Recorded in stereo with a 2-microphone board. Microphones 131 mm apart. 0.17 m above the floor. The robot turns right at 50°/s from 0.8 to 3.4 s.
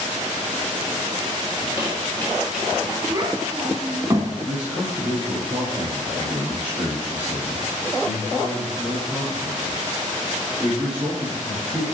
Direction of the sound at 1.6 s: 45° left (ahead or behind).